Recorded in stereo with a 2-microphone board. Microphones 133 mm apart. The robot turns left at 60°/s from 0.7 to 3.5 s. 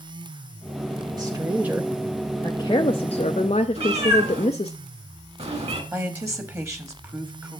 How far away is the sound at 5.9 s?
About 1.2 m.